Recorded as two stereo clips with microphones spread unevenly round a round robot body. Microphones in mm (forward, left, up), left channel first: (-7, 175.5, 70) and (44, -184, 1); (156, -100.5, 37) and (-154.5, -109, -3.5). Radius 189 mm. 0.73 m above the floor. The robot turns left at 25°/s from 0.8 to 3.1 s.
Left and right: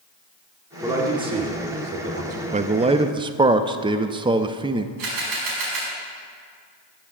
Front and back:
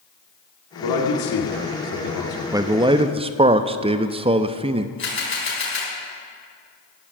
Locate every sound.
0.8 s a man speaking: straight ahead, 2 m; by 2.4 s 40° right, 2 m
2.5 s a man speaking: 115° right, 0.5 m; by 4.9 s 130° right, 0.5 m
5.0 s a camera shutter: 50° right, 5 m